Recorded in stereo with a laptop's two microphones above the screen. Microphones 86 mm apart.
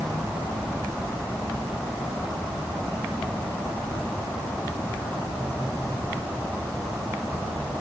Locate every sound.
Only background noise.